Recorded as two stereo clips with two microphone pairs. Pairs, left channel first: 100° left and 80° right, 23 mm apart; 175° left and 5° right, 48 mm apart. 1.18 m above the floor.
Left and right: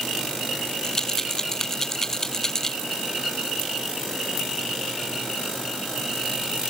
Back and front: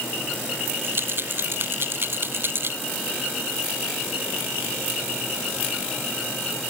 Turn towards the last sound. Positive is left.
turn(degrees=35)